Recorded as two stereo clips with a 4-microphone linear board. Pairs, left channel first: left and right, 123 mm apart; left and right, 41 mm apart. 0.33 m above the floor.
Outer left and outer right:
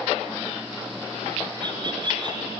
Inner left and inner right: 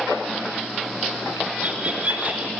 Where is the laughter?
40° right (ahead or behind), 4.5 m.